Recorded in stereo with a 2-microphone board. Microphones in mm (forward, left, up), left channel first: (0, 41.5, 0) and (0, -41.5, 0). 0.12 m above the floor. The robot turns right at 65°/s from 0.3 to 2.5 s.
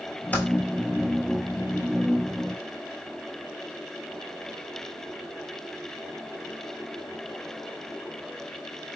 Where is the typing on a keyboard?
20° left (ahead or behind), 0.7 m; by 0.5 s 25° left (ahead or behind), 0.7 m.